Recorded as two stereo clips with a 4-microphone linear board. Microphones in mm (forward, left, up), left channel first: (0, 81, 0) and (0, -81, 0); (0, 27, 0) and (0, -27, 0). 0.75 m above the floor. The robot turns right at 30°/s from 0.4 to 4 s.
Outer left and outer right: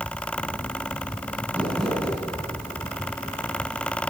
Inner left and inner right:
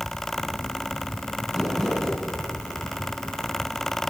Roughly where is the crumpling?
Centre.